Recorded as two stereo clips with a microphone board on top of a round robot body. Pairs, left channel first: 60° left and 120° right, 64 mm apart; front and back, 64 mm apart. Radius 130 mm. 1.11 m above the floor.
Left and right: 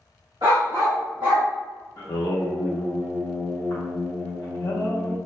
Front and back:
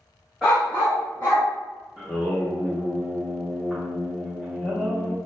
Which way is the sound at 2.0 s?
85° left.